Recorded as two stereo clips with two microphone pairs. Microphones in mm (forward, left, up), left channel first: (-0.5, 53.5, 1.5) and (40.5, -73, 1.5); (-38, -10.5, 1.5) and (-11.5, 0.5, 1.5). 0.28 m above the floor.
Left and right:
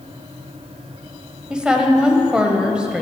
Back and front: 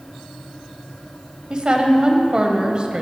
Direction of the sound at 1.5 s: 5° left.